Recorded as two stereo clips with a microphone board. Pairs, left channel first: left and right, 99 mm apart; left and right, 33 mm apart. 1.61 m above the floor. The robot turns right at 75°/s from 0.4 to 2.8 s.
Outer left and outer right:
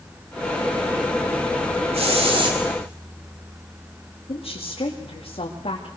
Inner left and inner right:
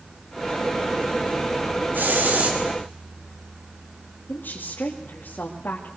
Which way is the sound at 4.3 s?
75° left (ahead or behind).